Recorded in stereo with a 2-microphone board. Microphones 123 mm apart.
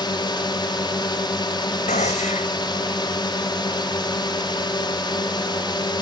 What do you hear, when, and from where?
0.0 s a drone: 40° left (ahead or behind)
1.9 s a gunshot: 85° left